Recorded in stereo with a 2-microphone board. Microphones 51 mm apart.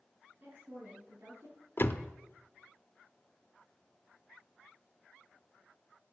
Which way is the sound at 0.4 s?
60° right (ahead or behind).